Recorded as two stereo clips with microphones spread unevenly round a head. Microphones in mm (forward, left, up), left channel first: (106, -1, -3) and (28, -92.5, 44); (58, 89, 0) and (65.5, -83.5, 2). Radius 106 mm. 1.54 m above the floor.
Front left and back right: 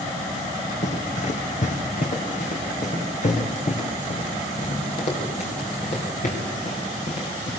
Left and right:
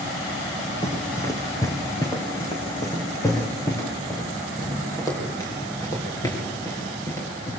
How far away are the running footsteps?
About 3.5 m.